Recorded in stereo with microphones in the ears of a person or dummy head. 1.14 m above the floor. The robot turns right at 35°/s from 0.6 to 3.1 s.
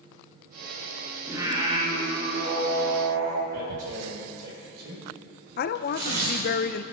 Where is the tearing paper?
60° right (ahead or behind), 4.5 m.